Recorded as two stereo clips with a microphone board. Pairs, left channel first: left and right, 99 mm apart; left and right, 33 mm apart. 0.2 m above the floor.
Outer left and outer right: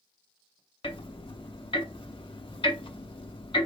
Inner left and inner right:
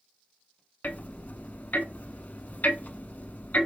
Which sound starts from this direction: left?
Ticking, at 0.8 s.